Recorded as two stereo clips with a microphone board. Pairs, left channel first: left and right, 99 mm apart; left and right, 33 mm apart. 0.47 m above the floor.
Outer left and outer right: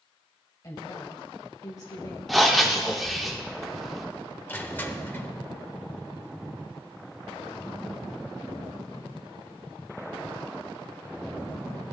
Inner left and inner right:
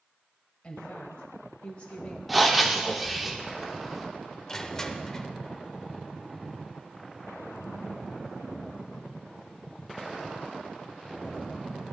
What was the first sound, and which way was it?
A woman speaking, 40° left (ahead or behind).